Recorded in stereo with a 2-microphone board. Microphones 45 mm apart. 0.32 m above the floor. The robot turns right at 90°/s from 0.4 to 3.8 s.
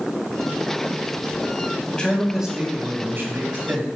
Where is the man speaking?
145° left, 1.8 m; by 3.9 s 40° right, 1.8 m.